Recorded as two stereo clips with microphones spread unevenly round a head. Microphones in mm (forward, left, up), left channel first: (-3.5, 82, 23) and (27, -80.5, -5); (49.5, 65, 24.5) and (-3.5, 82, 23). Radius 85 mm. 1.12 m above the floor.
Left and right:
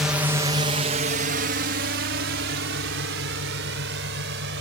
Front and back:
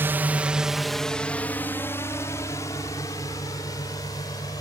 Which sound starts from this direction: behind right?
A drone, at 0.0 s.